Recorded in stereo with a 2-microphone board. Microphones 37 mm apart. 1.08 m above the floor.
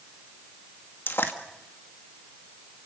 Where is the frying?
70° left (ahead or behind), 1.7 m.